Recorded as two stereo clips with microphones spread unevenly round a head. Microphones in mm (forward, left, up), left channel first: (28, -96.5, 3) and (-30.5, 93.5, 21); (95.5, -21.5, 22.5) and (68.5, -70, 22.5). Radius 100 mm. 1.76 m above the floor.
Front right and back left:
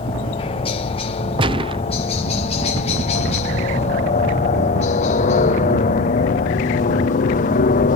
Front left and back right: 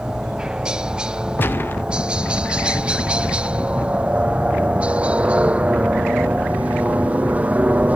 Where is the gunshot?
70° left.